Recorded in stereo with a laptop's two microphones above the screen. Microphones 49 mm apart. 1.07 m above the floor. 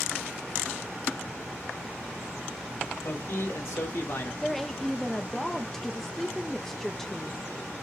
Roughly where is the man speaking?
Left.